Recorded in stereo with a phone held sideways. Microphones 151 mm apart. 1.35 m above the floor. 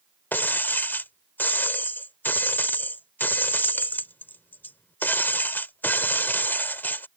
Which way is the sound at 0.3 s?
15° left (ahead or behind).